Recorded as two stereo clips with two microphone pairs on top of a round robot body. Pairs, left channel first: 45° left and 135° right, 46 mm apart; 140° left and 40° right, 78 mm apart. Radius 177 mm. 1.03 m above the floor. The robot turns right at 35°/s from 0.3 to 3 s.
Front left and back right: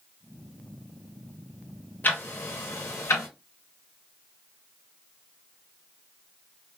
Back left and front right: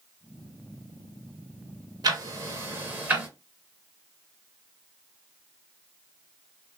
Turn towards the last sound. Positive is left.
turn(degrees=30)